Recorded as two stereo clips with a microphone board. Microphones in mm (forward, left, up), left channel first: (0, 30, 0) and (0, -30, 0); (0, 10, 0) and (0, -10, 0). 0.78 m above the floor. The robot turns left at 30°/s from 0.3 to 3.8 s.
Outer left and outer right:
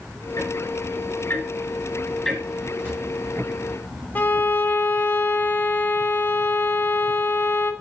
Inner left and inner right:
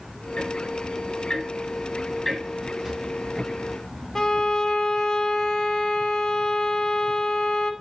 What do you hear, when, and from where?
0.4 s ticking: 60° left (ahead or behind), 3.5 m; by 2.7 s 15° right (ahead or behind), 3.5 m
2.8 s a drawer: 40° right (ahead or behind), 4 m; by 3.0 s 45° right (ahead or behind), 4 m
4.2 s a violin: 30° left (ahead or behind), 0.9 m